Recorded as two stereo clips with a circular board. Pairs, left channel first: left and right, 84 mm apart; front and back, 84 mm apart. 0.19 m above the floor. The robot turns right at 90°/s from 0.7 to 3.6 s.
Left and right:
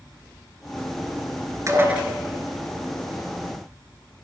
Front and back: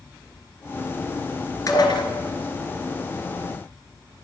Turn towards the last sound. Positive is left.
turn(degrees=130)